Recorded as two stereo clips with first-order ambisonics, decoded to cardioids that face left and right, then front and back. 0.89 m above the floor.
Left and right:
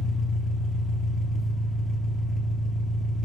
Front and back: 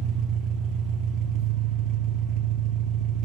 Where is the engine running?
170° left, 0.7 m.